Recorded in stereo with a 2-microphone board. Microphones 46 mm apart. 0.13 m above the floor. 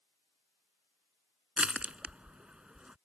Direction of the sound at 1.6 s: 25° right (ahead or behind).